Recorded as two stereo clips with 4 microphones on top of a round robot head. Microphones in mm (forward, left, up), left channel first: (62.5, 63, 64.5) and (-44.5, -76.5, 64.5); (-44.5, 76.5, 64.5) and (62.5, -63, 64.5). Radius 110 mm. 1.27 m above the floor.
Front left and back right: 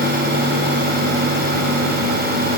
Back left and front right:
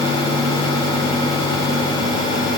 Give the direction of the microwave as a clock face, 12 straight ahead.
No microwave in this recording.